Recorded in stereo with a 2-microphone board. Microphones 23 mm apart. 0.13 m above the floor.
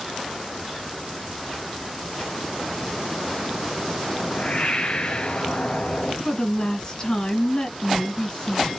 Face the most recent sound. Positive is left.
turn(degrees=30)  # may be behind; listen again after turning